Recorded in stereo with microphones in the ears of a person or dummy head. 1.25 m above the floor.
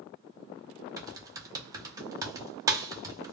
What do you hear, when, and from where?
1.0 s typing on a keyboard: 15° right (ahead or behind), 0.5 m